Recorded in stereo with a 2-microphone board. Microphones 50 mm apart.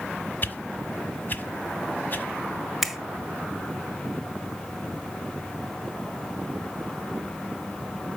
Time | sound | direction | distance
0.4 | a whoosh | 40° left (ahead or behind) | 1.3 m
2.8 | a finger snap | 5° right (ahead or behind) | 1.4 m